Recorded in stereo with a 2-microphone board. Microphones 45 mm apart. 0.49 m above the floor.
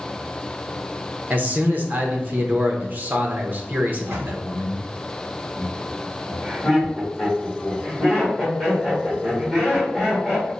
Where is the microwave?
65° right (ahead or behind), 1.1 m.